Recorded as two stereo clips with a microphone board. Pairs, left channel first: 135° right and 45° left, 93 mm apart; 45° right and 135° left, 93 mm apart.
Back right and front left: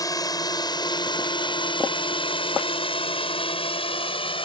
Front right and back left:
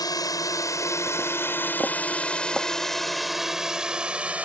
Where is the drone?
90° right; by 4.4 s 150° right.